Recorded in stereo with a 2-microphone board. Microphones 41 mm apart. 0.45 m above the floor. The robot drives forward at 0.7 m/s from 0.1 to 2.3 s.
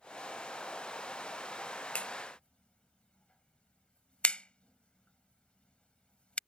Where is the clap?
30° left (ahead or behind); by 6.4 s 25° left (ahead or behind).